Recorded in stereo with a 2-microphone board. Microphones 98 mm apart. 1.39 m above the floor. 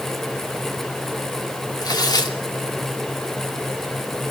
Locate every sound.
1.8 s tearing paper: 45° left (ahead or behind), 2.5 m